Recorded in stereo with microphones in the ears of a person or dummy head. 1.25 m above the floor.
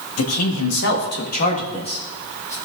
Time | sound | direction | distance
0.2 | a man speaking | 85° left | 2.0 m